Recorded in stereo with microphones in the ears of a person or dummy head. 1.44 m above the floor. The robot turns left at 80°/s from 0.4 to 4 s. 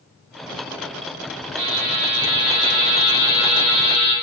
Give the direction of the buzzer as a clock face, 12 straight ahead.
1 o'clock.